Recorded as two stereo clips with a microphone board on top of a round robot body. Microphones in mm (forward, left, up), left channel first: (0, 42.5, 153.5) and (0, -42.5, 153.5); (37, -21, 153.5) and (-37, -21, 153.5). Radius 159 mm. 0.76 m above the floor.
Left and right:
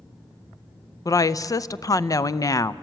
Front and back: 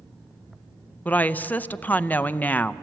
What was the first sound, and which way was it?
A woman speaking, 60° left.